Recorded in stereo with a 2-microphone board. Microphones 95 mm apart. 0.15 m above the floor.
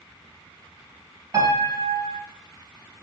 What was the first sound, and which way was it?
A piano, 35° right (ahead or behind).